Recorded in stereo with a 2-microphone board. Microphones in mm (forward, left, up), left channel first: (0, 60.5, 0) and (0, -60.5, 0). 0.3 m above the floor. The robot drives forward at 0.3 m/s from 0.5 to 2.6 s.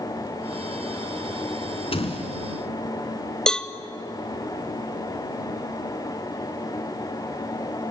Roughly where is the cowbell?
Centre.